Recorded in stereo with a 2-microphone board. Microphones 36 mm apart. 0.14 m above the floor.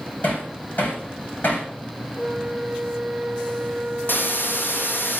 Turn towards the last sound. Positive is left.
turn(degrees=75)  # may be behind; listen again after turning